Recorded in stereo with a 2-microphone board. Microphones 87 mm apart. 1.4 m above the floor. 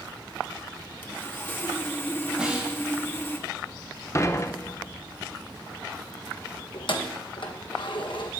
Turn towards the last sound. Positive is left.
turn(degrees=65)  # may be behind; listen again after turning